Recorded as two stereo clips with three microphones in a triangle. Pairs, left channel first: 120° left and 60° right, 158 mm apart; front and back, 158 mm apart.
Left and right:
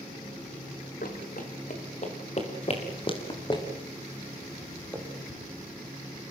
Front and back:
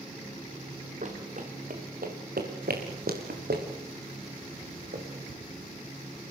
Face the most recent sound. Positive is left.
turn(degrees=-165)